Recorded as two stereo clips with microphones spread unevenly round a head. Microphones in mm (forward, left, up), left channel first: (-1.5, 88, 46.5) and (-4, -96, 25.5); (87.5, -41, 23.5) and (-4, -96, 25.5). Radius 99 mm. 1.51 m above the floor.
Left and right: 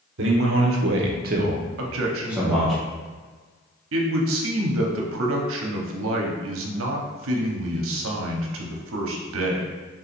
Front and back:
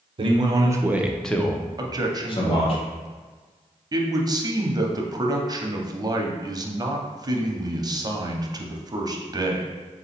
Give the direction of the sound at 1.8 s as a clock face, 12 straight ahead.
3 o'clock.